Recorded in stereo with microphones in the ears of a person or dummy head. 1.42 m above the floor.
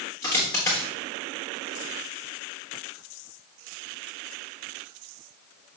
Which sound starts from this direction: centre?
A dropped coin, at 0.2 s.